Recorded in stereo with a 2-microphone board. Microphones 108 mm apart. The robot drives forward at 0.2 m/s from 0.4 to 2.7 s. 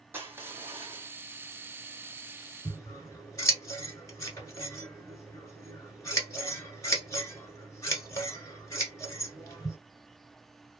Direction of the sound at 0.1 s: 20° right (ahead or behind).